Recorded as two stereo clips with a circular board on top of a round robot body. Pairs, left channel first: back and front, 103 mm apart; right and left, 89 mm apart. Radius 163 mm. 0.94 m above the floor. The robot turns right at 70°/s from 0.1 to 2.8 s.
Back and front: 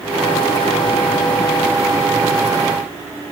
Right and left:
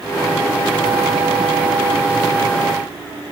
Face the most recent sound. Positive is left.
No sound to turn to.